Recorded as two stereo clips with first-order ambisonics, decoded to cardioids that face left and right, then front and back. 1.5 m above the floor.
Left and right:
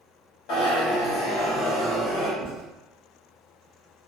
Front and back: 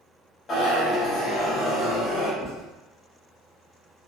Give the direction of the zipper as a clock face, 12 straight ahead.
10 o'clock.